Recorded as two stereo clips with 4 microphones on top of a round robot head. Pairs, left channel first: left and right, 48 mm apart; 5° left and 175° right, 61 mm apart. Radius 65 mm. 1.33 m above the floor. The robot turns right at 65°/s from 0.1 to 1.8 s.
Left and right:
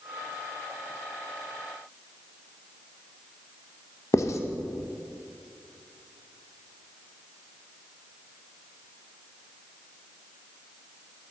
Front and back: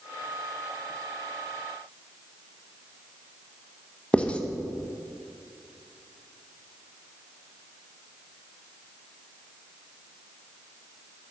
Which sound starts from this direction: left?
Writing, at 4.1 s.